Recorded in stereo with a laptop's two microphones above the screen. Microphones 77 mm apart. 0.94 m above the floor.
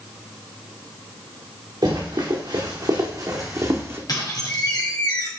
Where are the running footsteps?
70° right (ahead or behind), 3.5 m; by 4.0 s 35° right (ahead or behind), 1.9 m.